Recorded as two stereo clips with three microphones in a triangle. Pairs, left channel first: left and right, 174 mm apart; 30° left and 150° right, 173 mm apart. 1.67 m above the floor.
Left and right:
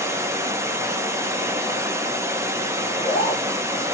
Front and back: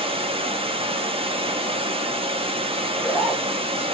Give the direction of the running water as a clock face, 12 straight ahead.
5 o'clock.